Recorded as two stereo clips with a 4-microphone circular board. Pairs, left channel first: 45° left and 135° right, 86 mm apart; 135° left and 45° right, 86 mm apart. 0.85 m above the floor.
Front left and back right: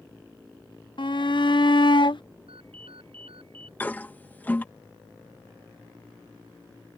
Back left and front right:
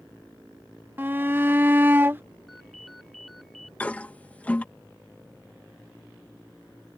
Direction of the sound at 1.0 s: 20° left.